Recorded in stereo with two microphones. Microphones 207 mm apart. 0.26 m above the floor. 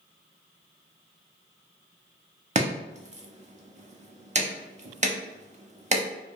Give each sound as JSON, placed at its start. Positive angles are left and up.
{"t": 2.5, "sound": "chopping", "side_deg": -35, "distance_m": 0.7}